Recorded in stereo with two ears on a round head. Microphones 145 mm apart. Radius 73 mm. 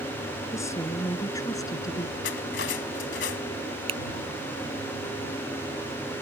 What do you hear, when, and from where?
0.5 s a woman speaking: 20° left (ahead or behind); by 2.1 s 25° left (ahead or behind)
2.2 s cutlery clinking: 85° left
3.9 s a finger snap: 35° right (ahead or behind)